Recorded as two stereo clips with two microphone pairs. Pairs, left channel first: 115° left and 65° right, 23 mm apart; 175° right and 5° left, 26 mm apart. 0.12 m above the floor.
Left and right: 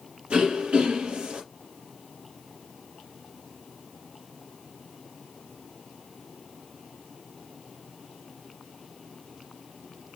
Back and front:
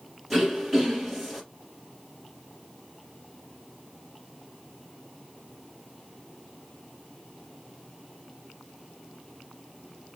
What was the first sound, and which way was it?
Throat clearing, 90° right.